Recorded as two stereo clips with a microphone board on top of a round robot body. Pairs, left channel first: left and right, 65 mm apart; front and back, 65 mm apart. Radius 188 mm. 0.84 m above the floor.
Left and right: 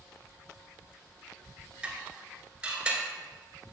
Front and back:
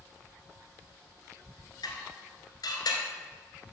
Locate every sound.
1.8 s dishes clattering: 20° right, 2.5 m